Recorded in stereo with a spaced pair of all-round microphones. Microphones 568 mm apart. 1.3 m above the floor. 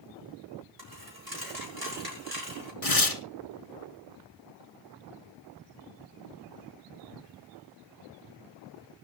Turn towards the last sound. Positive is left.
turn(degrees=80)